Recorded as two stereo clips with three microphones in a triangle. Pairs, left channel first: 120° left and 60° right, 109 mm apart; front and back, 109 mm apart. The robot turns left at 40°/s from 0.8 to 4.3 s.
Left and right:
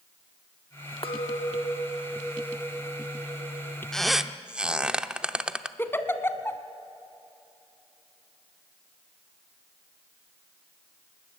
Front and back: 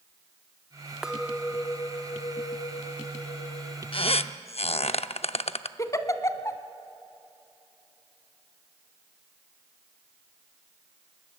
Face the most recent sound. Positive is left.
turn(degrees=55)